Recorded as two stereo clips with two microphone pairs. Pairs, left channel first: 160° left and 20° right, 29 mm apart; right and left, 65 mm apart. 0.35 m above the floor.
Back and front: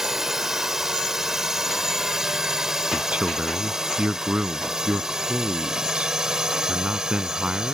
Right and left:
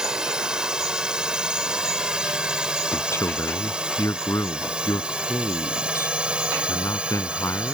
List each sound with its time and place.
0.0 s a drone: 35° left; by 7.8 s 30° left
2.9 s a man speaking: 60° right